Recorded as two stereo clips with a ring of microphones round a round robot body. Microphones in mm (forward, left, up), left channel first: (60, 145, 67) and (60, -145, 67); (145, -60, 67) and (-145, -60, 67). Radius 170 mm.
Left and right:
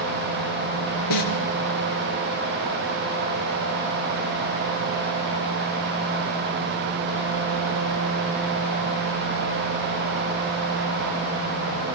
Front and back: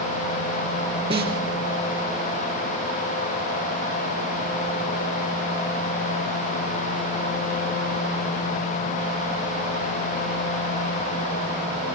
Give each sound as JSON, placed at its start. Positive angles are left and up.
{"t": 1.1, "sound": "a snare drum", "azimuth_deg": 105, "distance_m": 4.0}